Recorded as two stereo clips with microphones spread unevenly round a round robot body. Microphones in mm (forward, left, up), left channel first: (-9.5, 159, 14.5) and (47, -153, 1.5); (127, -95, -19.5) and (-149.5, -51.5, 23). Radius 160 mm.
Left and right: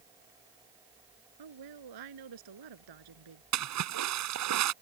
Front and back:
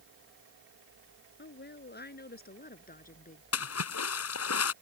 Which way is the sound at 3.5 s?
45° right.